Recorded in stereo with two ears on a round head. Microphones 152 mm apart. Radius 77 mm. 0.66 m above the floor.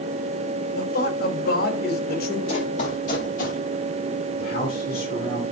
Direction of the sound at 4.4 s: 55° left (ahead or behind).